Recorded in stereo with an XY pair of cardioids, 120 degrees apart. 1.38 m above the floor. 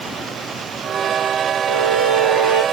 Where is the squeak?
65° right, 1.6 m.